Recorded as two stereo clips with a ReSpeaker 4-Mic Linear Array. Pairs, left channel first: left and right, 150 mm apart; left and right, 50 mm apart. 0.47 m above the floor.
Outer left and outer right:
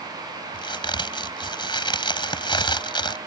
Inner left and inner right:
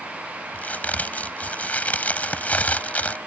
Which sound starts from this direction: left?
A crack, at 0.5 s.